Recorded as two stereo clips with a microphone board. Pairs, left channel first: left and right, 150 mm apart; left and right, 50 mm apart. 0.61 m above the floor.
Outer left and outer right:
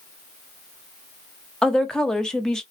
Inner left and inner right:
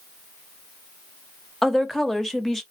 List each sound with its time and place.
1.6 s a woman speaking: 5° left (ahead or behind), 0.7 m